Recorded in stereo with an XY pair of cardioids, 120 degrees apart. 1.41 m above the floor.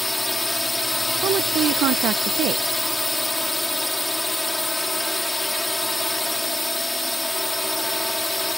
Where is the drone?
5° left.